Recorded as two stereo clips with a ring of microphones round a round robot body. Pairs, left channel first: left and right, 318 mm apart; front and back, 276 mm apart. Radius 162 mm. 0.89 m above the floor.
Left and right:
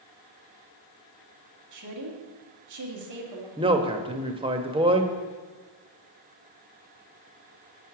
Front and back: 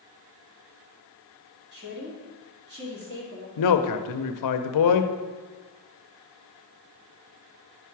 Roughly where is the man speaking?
Ahead.